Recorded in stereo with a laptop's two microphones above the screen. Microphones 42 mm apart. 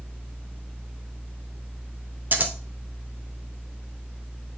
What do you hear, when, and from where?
0.0 s a fan: 55° left (ahead or behind), 2.5 m
2.3 s scissors: 45° right (ahead or behind), 0.6 m